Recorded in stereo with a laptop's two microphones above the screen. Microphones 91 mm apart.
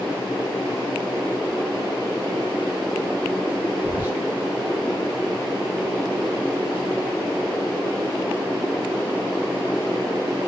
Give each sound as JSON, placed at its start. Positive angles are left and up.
{"t": 3.8, "sound": "whispering", "side_deg": -20, "distance_m": 1.9}